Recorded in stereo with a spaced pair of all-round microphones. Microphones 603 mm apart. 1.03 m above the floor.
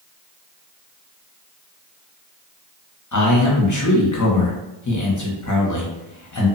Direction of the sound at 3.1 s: 30° left (ahead or behind).